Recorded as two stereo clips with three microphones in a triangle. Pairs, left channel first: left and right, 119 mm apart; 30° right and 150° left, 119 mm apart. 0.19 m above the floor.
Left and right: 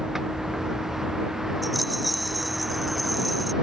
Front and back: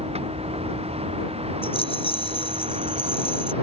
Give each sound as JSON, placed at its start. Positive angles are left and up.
{"t": 0.0, "sound": "a vehicle", "azimuth_deg": -175}
{"t": 1.6, "sound": "a rattle", "azimuth_deg": 0}